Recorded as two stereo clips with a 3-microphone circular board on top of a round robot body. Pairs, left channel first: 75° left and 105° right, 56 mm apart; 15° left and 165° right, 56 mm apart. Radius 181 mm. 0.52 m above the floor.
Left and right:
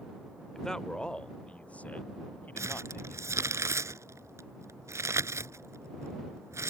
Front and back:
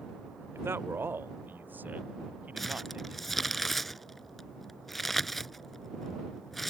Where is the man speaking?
155° left; by 3.6 s 130° left.